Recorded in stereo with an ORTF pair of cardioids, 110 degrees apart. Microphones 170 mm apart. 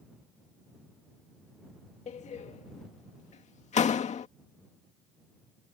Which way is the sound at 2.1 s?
40° left.